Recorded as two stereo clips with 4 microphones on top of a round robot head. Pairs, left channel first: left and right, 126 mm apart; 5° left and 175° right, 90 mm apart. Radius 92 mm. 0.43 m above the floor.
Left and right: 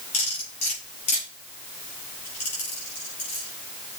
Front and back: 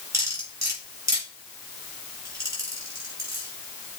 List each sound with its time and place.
0.1 s cutlery clinking: 135° left, 6 m